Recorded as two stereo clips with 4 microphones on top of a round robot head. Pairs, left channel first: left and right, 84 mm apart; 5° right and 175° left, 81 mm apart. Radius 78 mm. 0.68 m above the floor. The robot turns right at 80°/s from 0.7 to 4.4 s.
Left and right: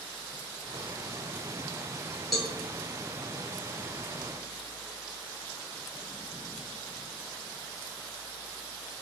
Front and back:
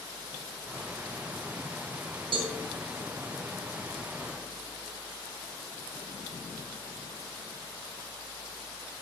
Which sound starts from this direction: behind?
A cowbell, at 2.3 s.